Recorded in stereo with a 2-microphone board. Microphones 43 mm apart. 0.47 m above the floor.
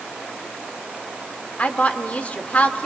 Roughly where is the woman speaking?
Left.